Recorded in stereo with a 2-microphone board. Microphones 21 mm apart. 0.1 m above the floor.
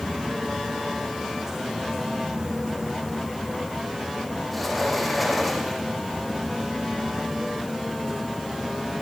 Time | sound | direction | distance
4.5 | a sliding door | centre (ahead or behind) | 5.5 m